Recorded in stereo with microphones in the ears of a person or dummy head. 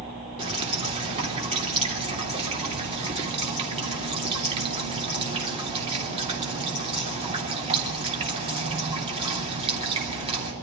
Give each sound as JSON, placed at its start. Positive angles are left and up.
{"t": 0.4, "sound": "dripping", "side_deg": -35, "distance_m": 3.0}